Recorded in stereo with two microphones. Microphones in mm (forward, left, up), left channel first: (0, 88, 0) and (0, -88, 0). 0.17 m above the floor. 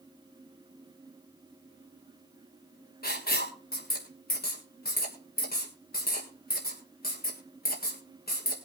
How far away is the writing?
About 3 m.